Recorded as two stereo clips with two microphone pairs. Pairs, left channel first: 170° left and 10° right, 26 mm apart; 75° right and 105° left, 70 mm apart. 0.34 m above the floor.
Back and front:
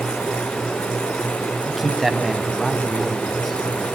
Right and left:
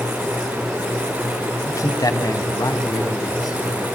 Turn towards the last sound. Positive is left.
turn(degrees=-105)